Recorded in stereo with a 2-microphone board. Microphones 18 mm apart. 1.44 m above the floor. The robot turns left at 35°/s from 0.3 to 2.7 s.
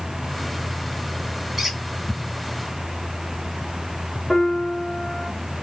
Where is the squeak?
20° right (ahead or behind), 1.6 m; by 1.8 s 25° right (ahead or behind), 1.6 m.